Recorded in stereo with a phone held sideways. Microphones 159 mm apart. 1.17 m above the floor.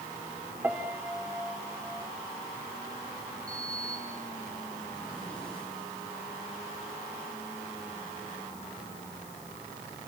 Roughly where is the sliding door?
Centre.